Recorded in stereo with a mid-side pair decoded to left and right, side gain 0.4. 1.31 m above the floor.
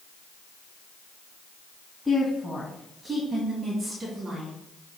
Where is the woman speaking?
5° left, 2.5 m; by 4.5 s 55° right, 3 m.